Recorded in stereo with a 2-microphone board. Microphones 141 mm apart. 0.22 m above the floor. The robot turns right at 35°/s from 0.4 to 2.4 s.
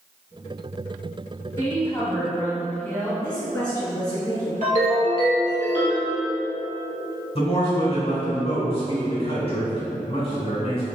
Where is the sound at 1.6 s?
20° left (ahead or behind), 1.0 m; by 3.1 s 15° left (ahead or behind), 1.0 m.